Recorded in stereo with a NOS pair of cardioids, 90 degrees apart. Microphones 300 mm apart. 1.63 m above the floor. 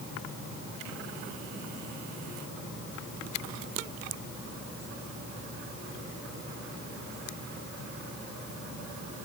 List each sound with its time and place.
Only background noise.